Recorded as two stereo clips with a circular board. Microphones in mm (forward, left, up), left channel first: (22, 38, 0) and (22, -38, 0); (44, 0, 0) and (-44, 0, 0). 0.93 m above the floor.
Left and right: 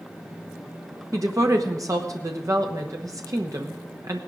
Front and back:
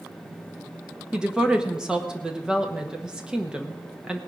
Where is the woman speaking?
100° right, 1.1 m.